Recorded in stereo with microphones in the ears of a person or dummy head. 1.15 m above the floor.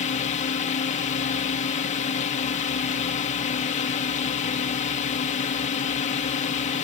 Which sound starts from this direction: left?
A drone, at 0.0 s.